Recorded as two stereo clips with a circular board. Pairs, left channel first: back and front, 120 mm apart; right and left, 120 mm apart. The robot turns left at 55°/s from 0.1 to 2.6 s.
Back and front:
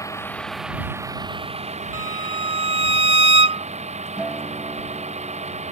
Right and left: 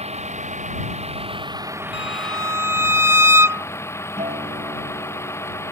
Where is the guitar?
85° left.